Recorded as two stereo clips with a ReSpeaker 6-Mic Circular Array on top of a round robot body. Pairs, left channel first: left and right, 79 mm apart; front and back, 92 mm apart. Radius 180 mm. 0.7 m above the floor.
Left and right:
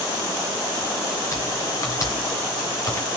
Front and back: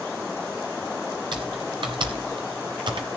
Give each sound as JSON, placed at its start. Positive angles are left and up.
{"t": 1.3, "sound": "typing on a keyboard", "azimuth_deg": 145, "distance_m": 0.7}